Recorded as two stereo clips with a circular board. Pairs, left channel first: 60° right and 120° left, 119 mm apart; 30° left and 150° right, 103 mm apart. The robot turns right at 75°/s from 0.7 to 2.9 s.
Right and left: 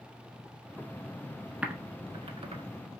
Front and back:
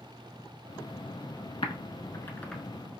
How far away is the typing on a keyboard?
About 0.6 m.